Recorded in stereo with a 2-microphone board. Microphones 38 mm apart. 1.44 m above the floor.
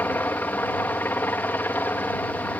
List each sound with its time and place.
0.0 s a helicopter: 60° left (ahead or behind)